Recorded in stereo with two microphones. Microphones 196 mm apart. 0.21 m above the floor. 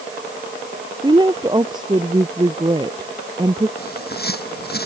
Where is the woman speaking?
20° right (ahead or behind).